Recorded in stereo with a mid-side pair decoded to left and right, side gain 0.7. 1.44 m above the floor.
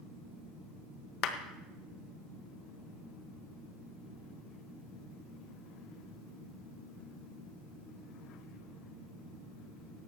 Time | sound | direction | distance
1.2 | a clap | 55° left | 1.4 m